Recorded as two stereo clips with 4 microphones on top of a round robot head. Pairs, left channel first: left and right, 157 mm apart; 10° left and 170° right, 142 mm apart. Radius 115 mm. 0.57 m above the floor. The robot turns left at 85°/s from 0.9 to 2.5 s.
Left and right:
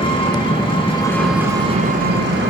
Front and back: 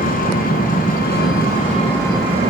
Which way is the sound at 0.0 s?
30° left.